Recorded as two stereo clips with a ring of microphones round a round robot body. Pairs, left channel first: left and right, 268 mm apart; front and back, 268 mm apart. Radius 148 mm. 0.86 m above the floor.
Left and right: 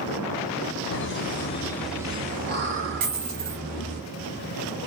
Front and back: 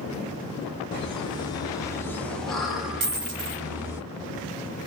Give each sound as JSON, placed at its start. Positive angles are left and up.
{"t": 0.9, "sound": "laughter", "azimuth_deg": 70, "distance_m": 0.9}
{"t": 3.0, "sound": "a dropped coin", "azimuth_deg": -135, "distance_m": 1.3}